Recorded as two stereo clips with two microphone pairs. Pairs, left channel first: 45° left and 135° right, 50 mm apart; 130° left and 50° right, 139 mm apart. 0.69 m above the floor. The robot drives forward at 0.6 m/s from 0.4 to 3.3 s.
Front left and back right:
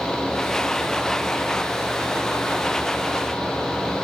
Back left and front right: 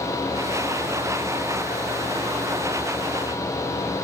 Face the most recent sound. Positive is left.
No sound to turn to.